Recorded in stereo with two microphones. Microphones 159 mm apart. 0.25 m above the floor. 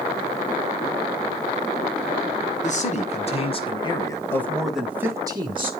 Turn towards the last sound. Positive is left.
turn(degrees=-35)  # may be behind; listen again after turning